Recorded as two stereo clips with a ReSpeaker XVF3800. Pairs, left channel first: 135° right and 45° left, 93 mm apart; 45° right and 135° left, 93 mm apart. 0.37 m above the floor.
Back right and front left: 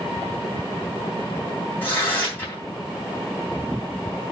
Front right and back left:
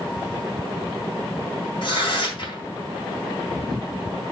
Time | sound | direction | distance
1.8 | tearing paper | 70° right | 3 m